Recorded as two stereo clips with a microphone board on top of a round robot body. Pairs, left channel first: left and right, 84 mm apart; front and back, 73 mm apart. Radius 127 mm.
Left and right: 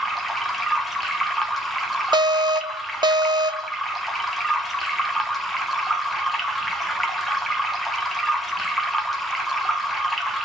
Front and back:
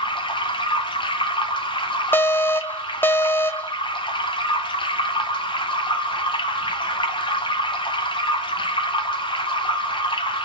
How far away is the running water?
About 0.8 m.